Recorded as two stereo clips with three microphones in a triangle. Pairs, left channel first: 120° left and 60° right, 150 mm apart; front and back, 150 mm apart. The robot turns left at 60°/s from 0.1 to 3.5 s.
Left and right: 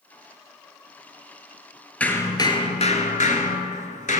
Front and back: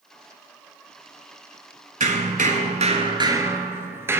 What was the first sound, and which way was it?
Hammering, 160° right.